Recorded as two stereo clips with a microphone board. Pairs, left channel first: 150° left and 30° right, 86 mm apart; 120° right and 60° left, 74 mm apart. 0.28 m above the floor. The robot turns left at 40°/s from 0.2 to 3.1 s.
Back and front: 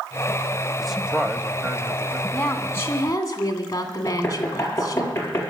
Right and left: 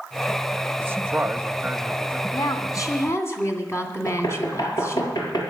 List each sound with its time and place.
0.8 s a man speaking: 60° left, 1.0 m; by 2.2 s straight ahead, 1.0 m
2.3 s a woman speaking: 135° right, 2.5 m; by 5.1 s 165° right, 2.5 m
4.1 s knocking: 150° right, 4 m